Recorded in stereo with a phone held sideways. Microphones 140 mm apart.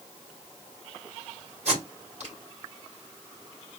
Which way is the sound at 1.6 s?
55° right (ahead or behind).